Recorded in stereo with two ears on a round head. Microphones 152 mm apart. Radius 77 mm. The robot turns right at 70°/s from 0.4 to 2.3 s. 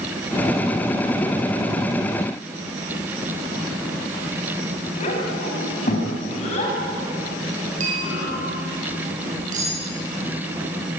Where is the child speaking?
40° left (ahead or behind), 6.5 m.